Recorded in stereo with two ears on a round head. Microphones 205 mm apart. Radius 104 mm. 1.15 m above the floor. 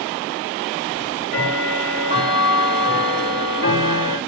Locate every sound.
0.9 s ticking: 50° left (ahead or behind), 3.5 m